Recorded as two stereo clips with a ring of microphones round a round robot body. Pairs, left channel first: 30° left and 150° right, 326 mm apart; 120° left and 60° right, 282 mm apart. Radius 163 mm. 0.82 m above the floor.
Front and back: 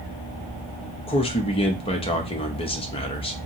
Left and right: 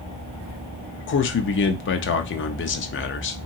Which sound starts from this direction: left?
A man speaking, at 1.1 s.